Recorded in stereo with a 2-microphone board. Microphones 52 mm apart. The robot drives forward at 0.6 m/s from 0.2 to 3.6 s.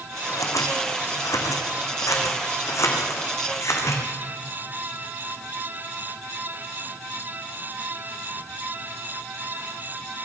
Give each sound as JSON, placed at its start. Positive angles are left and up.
{"t": 0.3, "sound": "scissors", "side_deg": 80, "distance_m": 2.5}